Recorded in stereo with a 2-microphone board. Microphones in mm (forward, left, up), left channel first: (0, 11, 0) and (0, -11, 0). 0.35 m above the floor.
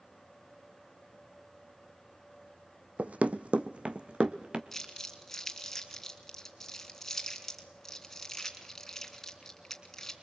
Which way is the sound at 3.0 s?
65° right (ahead or behind).